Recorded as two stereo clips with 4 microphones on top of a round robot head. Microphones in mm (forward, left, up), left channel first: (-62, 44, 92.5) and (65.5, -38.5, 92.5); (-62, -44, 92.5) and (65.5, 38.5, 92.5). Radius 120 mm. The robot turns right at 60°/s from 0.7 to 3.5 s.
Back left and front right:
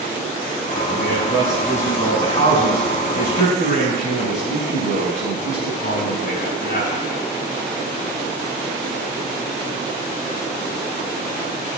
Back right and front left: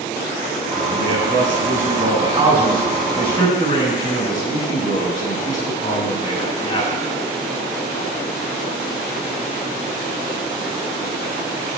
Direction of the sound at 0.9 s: 5° right.